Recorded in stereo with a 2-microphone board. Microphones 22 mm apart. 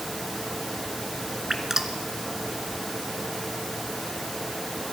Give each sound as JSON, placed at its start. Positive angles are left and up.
{"t": 1.5, "sound": "dripping", "side_deg": -20, "distance_m": 1.9}